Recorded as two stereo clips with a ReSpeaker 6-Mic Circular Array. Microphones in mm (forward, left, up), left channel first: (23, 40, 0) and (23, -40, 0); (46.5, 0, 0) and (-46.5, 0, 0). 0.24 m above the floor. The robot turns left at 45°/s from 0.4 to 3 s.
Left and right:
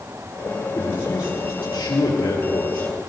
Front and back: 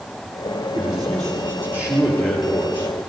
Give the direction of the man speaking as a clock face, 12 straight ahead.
7 o'clock.